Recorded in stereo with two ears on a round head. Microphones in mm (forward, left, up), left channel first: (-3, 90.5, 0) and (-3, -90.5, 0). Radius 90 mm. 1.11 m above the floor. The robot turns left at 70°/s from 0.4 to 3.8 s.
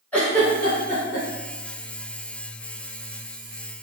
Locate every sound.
0.1 s a giggle: 5° left (ahead or behind), 1.8 m; by 1.3 s 55° left (ahead or behind), 1.8 m